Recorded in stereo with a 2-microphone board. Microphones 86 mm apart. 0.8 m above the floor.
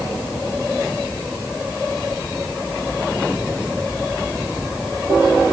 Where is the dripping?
I don't hear dripping.